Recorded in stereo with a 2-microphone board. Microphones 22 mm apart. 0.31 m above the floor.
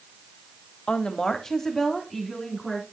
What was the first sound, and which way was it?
A woman speaking, 35° left (ahead or behind).